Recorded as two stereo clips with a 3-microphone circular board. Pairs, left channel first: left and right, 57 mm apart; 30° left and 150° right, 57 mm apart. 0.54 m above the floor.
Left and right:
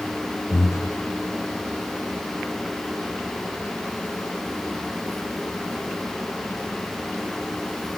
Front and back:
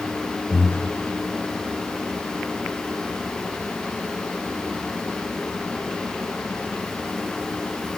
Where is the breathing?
85° left, 0.5 m.